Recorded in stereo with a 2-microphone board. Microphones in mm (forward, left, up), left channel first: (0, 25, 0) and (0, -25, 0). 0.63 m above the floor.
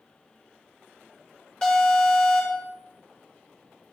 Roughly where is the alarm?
Left.